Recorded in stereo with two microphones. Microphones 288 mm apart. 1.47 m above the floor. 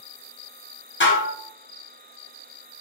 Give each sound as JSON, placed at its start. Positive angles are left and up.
{"t": 1.0, "sound": "dishes clattering", "side_deg": 40, "distance_m": 1.0}